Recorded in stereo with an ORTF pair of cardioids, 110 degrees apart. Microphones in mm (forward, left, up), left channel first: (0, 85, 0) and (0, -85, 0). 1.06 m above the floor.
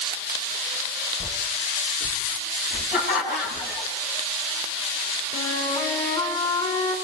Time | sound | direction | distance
1.2 | footsteps | 35° left | 5.5 m
2.9 | laughter | 60° left | 9 m
5.3 | a flute | 35° left | 6.5 m